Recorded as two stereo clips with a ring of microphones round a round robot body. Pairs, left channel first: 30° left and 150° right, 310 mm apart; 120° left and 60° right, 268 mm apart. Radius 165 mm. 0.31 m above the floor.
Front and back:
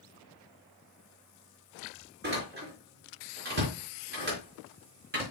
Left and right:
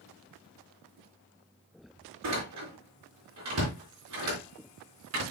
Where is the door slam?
95° right, 4 m.